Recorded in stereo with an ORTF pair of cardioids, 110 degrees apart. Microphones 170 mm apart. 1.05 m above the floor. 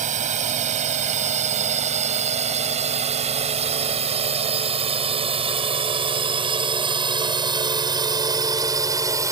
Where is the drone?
45° right; by 9.3 s 20° right.